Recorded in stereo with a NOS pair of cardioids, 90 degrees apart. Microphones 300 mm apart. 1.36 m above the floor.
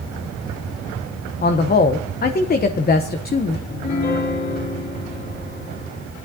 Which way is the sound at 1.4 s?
30° left.